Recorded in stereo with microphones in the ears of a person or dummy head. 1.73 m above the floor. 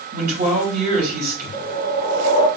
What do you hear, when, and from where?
0.1 s a man speaking: 50° right (ahead or behind), 2.5 m
1.5 s a whoosh: 30° left (ahead or behind), 1.6 m